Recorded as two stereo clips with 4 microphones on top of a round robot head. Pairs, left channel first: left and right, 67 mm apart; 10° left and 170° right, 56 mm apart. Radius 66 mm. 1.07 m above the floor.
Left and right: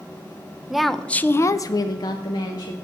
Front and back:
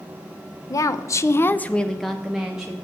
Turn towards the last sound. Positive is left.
turn(degrees=115)